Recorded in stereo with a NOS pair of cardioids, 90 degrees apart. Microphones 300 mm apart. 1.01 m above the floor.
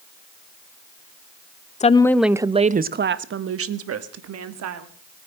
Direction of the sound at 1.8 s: 25° left.